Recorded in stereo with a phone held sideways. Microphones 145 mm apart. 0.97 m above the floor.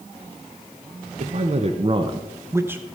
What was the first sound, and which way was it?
A man speaking, 50° right (ahead or behind).